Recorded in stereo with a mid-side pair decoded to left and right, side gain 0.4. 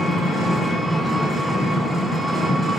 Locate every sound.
0.0 s an engine running: 25° left, 6 m